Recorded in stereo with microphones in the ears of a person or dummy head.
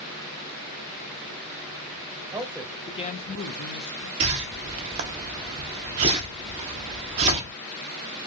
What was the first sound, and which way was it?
A man speaking, 20° right (ahead or behind).